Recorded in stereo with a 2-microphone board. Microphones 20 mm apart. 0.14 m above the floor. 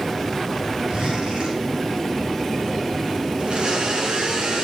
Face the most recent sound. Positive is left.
turn(degrees=-55)  # may be behind; listen again after turning